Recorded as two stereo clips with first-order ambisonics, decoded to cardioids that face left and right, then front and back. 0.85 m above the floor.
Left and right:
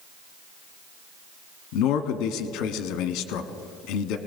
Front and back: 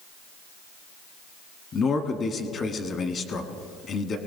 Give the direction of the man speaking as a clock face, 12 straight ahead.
10 o'clock.